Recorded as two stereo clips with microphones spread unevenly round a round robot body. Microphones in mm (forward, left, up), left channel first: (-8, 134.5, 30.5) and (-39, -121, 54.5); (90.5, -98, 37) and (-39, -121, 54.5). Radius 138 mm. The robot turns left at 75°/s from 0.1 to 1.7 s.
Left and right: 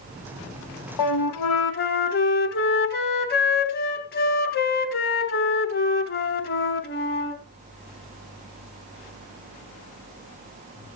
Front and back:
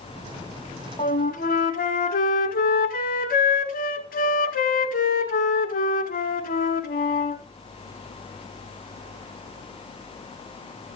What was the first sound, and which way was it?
A flute, 80° left.